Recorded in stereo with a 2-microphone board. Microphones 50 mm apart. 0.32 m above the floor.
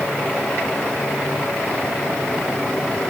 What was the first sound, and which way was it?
Only background noise.